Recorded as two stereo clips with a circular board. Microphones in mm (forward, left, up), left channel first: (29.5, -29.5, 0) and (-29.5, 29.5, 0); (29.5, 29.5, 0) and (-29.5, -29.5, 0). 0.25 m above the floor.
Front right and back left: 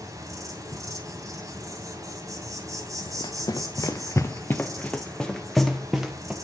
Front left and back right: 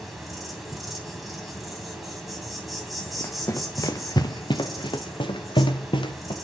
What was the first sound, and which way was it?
An insect, 135° left.